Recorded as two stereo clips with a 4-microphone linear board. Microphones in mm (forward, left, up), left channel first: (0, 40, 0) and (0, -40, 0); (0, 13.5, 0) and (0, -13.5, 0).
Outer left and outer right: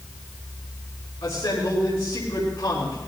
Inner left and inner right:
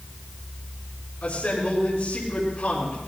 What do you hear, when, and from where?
1.2 s a man speaking: 80° left, 5 m